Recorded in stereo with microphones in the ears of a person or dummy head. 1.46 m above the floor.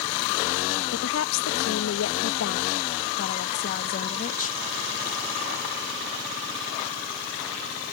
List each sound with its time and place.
0.9 s a woman speaking: 75° left (ahead or behind); by 4.6 s 45° left (ahead or behind)